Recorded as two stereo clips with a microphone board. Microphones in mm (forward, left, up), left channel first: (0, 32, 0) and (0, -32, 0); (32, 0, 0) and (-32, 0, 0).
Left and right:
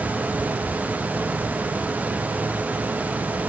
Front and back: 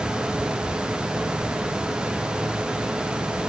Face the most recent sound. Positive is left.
No sound to turn to.